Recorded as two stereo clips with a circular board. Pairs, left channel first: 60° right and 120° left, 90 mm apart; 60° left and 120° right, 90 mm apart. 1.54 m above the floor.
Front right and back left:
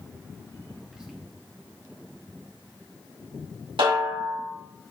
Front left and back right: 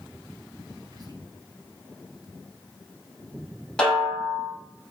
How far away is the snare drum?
About 5 m.